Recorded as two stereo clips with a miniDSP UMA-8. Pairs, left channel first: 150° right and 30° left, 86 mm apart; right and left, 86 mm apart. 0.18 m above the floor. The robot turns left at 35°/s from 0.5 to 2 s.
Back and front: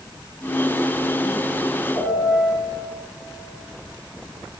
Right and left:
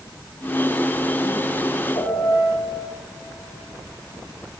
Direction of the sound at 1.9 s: 110° right.